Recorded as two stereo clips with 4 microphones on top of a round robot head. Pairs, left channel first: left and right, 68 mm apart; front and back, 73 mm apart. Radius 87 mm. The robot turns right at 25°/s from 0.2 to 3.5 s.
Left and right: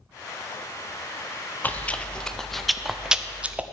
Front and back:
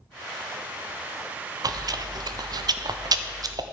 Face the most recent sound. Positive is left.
turn(degrees=-160)